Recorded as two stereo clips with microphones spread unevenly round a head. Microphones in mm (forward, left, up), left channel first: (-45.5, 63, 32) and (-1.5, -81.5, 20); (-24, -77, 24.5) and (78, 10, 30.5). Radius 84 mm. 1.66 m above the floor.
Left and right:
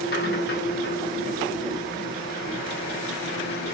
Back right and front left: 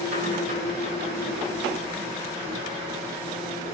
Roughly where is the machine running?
Left.